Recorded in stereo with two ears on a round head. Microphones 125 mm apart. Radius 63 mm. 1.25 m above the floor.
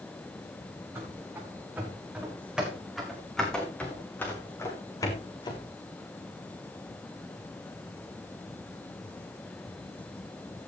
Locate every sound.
0.9 s running footsteps: 20° right (ahead or behind), 5.5 m; by 5.7 s 35° left (ahead or behind), 4 m